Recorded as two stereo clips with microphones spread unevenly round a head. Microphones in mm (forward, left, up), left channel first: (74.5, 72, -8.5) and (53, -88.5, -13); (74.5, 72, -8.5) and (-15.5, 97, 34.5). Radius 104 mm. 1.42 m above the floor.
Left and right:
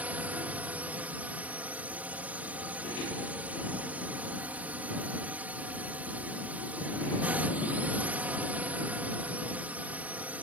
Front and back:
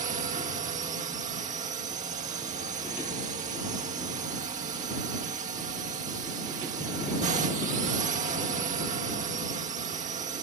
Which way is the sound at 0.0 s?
Straight behind.